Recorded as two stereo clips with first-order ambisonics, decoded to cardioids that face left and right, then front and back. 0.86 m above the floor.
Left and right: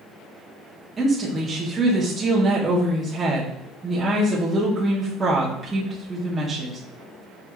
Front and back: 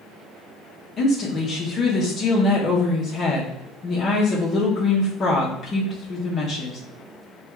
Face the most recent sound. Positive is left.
turn(degrees=-20)